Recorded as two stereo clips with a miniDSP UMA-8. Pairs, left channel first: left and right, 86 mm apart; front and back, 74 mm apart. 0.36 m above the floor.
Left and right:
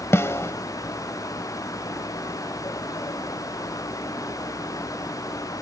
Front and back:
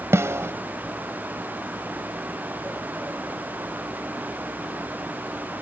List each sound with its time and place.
0.1 s a snare drum: 140° left